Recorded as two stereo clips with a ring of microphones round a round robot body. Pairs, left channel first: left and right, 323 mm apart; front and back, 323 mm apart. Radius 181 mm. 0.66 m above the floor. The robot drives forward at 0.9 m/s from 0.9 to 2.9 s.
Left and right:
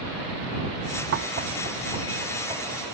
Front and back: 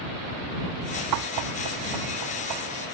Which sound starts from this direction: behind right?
Knocking, at 1.1 s.